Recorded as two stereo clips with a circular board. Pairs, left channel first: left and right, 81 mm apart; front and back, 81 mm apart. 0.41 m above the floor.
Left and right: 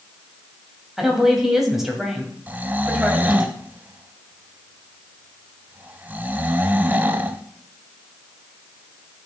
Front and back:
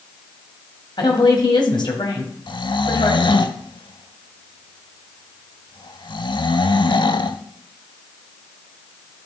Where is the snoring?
20° right, 0.5 m.